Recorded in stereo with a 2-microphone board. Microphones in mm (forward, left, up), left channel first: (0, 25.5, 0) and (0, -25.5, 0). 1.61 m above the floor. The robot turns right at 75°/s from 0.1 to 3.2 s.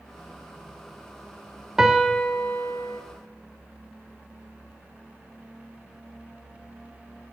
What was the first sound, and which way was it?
A piano, 15° right.